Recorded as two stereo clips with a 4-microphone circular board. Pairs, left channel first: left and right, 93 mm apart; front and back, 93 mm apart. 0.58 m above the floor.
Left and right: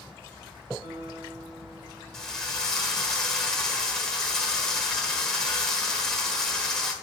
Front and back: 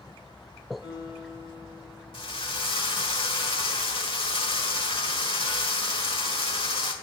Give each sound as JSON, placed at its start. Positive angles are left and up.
{"t": 0.8, "sound": "a guitar", "azimuth_deg": -115, "distance_m": 3.0}
{"t": 2.1, "sound": "a drill", "azimuth_deg": 5, "distance_m": 1.4}